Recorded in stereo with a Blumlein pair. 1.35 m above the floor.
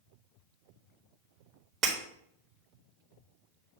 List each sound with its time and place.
1.8 s breaking glass: 30° right, 1.5 m